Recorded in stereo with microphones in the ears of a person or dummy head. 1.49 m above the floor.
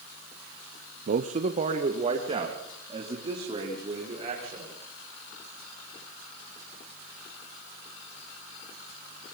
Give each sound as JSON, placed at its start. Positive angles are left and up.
{"t": 1.1, "sound": "a man speaking", "side_deg": -50, "distance_m": 0.8}